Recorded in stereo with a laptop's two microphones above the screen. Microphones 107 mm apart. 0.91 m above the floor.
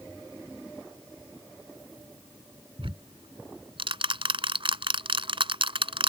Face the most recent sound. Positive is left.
turn(degrees=-60)  # may be behind; listen again after turning